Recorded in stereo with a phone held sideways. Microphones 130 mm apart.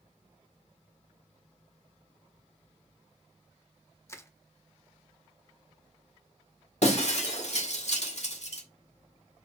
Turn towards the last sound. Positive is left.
turn(degrees=60)  # may be behind; listen again after turning